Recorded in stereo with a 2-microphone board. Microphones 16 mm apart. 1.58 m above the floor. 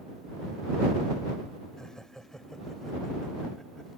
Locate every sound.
1.8 s laughter: 40° left (ahead or behind); by 3.9 s 30° left (ahead or behind)